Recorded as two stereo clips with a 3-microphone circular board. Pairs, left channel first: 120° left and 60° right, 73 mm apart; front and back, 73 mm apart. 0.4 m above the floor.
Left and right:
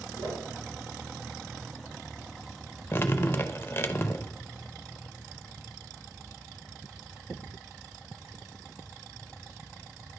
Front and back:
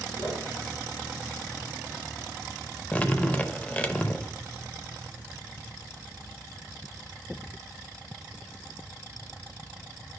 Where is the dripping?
70° left, 0.5 m.